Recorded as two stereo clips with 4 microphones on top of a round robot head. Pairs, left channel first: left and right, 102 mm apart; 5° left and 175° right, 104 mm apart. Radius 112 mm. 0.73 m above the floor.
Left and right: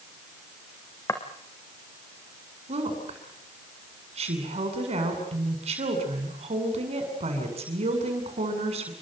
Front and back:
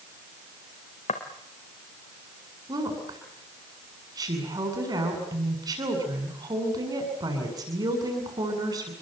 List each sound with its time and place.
1.1 s footsteps: 25° left, 3.5 m
2.7 s a woman speaking: 115° right, 7.5 m